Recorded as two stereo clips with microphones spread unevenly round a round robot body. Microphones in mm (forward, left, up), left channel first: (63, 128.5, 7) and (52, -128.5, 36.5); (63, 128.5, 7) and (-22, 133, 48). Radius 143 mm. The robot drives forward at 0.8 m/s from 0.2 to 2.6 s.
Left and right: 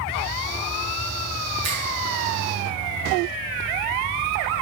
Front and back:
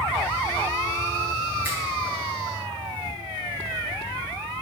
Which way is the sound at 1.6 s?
115° right.